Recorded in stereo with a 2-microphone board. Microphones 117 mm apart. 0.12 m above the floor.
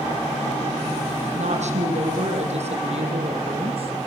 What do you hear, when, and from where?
1.4 s a woman speaking: 65° right (ahead or behind), 5 m; by 3.9 s 50° right (ahead or behind), 4 m